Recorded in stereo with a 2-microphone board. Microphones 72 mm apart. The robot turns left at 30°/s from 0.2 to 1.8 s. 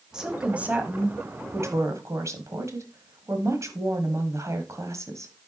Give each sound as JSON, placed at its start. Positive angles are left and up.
{"t": 0.1, "sound": "a woman speaking", "azimuth_deg": -10, "distance_m": 1.5}